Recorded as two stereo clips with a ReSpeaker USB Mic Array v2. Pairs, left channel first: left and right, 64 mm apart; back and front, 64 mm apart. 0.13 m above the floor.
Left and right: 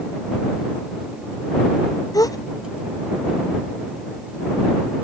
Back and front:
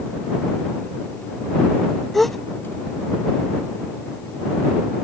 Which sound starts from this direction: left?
A gasp, at 2.1 s.